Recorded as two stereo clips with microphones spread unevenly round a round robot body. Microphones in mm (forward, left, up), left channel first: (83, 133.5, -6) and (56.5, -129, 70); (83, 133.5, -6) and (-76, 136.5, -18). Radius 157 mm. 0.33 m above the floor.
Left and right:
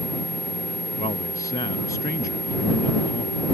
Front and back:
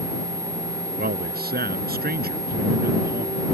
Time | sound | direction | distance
1.0 | a man speaking | 160° left | ?